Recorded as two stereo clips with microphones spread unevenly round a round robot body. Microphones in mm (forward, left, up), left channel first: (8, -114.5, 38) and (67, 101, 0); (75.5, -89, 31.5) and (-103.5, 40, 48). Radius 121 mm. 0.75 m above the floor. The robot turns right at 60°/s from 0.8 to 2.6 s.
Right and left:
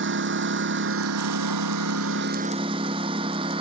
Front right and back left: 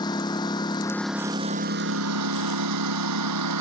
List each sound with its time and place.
0.0 s a lawn mower: 40° left; by 3.6 s 145° left